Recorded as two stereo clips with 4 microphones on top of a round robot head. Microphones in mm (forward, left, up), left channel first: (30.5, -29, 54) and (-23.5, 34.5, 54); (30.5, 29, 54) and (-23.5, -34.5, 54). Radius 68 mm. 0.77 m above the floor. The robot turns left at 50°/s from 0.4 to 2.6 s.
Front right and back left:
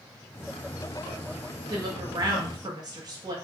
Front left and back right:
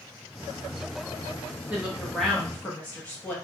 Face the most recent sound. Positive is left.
turn(degrees=115)